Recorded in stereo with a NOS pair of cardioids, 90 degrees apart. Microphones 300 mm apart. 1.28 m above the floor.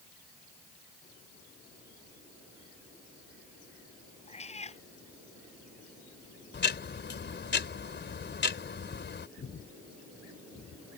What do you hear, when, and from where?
4.3 s a cat meowing: 20° left
6.5 s ticking: 35° left
9.4 s breathing: 45° left